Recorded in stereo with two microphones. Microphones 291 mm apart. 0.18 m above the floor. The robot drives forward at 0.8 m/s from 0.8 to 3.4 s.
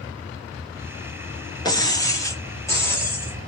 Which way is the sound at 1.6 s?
15° left (ahead or behind).